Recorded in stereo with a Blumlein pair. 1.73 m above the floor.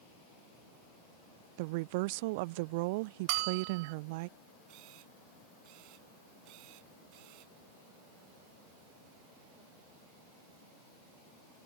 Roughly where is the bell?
Ahead right.